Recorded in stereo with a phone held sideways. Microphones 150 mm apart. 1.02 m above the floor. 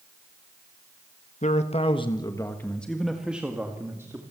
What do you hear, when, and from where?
1.4 s a man speaking: 55° left (ahead or behind), 1.5 m; by 4.2 s 20° right (ahead or behind), 2.5 m